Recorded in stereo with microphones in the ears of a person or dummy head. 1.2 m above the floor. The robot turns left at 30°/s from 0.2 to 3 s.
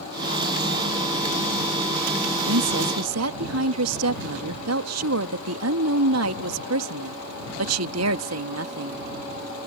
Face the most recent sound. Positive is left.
turn(degrees=-70)  # may be behind; listen again after turning